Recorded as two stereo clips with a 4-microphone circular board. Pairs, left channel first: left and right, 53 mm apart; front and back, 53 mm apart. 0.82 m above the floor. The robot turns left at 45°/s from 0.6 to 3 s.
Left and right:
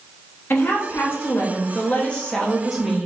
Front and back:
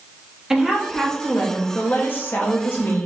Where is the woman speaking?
100° left, 1.1 m; by 3.1 s 10° right, 1.1 m.